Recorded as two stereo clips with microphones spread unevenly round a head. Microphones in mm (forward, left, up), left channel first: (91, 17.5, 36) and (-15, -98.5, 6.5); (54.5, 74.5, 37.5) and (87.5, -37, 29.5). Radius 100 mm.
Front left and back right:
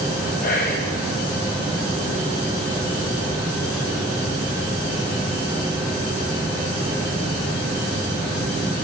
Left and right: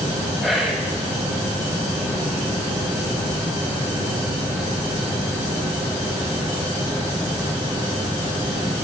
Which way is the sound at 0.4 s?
15° left.